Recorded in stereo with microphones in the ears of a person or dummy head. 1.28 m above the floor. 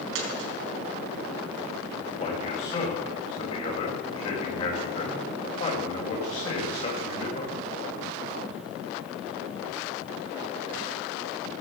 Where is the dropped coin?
75° right (ahead or behind), 4.5 m.